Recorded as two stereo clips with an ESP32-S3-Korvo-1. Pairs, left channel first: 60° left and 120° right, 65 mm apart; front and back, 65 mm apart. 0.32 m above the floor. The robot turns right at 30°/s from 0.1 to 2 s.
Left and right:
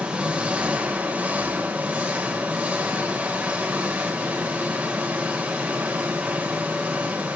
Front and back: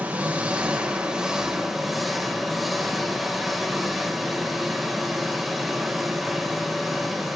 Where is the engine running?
155° right, 1.2 m; by 7.4 s 95° right, 1.2 m.